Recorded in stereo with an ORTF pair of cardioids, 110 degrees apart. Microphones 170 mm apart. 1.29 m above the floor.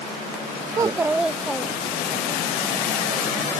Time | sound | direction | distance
0.7 | a child speaking | 25° right | ?